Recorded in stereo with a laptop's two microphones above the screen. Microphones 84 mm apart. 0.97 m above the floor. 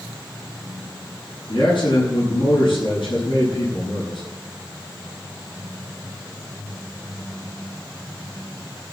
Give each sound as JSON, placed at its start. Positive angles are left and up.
{"t": 1.5, "sound": "a man speaking", "side_deg": 85, "distance_m": 8.0}